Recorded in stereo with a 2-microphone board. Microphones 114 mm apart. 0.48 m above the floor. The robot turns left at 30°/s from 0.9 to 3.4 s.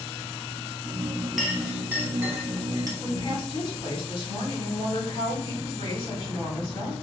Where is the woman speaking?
55° left (ahead or behind), 1.8 m.